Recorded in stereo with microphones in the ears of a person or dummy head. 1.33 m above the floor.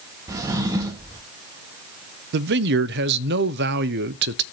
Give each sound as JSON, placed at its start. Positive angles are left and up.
{"t": 0.3, "sound": "a drawer", "side_deg": -10, "distance_m": 0.7}
{"t": 2.3, "sound": "a man speaking", "side_deg": -60, "distance_m": 0.6}